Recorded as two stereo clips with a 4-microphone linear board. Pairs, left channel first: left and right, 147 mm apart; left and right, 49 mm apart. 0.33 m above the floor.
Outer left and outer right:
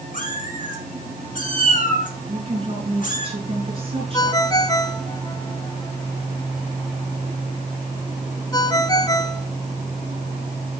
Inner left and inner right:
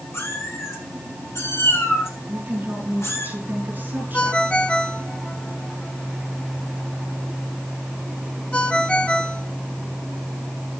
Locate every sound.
0.1 s a cat meowing: 65° left (ahead or behind), 4 m
2.3 s a woman speaking: 40° right (ahead or behind), 5 m
4.1 s a ringtone: 25° left (ahead or behind), 1.2 m